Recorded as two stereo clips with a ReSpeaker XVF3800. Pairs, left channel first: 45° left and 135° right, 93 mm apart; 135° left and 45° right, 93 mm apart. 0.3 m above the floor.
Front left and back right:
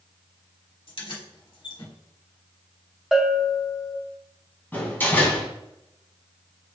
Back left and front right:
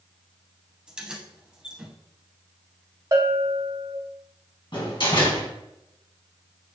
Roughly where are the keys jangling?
Ahead left.